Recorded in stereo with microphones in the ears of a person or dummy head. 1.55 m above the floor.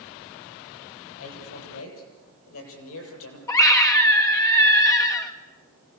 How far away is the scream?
About 1.4 m.